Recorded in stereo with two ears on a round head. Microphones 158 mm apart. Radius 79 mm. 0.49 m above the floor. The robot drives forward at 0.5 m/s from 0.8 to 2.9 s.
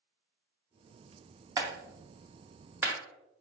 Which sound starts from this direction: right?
A clap, at 1.6 s.